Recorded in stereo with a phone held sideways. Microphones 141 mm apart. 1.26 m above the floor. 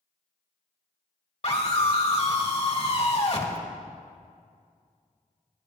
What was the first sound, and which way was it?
A scream, 50° left (ahead or behind).